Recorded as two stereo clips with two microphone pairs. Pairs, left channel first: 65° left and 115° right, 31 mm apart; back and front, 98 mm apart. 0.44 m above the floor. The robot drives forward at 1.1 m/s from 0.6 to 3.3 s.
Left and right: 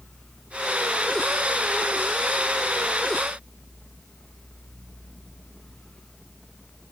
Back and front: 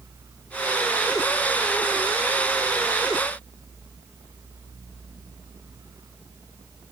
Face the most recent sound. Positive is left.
No sound to turn to.